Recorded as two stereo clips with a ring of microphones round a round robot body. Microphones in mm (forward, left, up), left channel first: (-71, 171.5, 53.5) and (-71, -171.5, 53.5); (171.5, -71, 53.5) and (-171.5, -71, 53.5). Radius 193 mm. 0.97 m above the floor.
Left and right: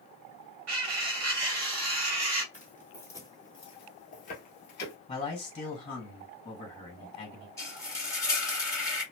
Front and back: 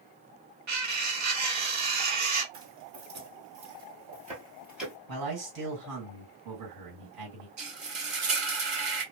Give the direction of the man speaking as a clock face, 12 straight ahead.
7 o'clock.